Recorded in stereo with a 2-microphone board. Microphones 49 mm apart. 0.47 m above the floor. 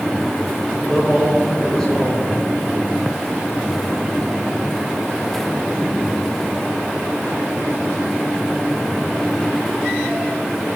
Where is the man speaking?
15° left (ahead or behind), 1.8 m.